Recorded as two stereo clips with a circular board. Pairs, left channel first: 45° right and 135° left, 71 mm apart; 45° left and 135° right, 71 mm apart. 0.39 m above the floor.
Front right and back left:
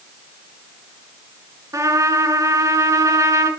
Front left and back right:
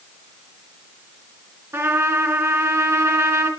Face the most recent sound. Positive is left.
turn(degrees=175)